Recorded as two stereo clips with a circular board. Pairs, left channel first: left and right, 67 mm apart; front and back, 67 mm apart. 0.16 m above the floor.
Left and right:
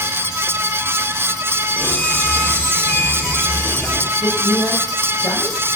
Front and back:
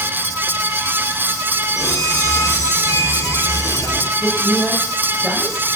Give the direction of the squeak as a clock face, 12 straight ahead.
11 o'clock.